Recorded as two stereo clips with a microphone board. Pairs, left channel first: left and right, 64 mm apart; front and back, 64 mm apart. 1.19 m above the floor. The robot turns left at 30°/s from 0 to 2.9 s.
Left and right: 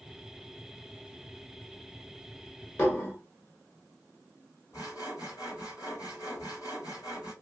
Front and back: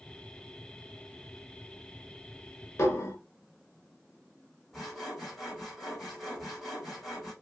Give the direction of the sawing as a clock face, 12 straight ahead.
9 o'clock.